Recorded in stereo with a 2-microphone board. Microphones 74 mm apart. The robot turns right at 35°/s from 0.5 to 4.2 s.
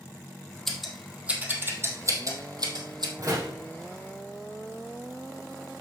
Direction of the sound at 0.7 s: 5° left (ahead or behind).